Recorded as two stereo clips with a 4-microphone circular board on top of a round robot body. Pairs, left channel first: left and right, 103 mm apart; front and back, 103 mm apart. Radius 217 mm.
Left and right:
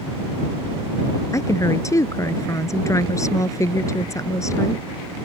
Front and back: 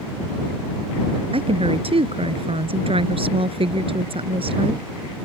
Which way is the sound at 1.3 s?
150° left.